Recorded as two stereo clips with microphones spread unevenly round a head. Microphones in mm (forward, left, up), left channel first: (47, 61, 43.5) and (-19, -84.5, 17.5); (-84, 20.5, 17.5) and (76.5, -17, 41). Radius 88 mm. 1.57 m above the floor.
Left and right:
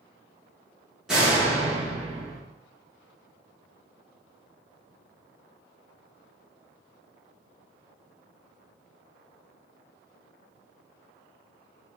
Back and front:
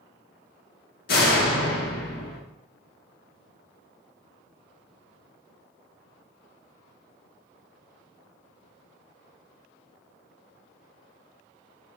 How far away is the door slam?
About 1.0 m.